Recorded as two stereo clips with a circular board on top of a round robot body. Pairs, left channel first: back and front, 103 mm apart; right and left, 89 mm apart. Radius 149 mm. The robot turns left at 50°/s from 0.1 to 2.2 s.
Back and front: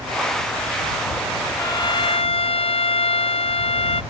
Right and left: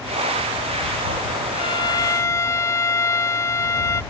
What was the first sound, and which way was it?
A violin, 115° right.